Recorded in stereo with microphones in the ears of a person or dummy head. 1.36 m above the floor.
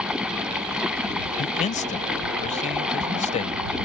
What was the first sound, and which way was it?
Running water, centre (ahead or behind).